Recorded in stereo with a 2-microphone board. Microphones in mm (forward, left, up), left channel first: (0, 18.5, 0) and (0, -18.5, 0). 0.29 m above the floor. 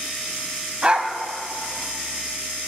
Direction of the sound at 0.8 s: 30° right (ahead or behind).